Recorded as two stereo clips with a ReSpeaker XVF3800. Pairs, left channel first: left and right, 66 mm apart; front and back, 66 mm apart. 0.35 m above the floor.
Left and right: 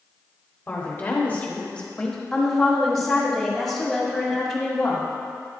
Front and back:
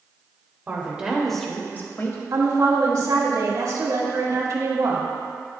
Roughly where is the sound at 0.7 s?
Behind left.